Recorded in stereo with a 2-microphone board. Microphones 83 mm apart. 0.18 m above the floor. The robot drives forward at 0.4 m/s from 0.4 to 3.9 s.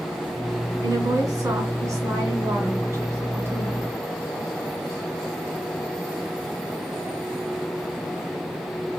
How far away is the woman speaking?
About 2 m.